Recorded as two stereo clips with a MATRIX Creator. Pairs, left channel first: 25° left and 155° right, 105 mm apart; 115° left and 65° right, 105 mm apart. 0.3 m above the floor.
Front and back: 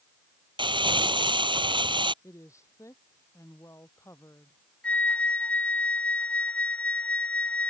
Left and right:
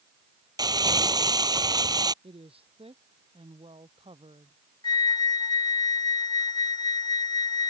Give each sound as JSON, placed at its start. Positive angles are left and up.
{"t": 0.6, "sound": "crumpling", "azimuth_deg": -120}
{"t": 2.2, "sound": "a woman speaking", "azimuth_deg": -40}
{"t": 4.8, "sound": "a flute", "azimuth_deg": 95}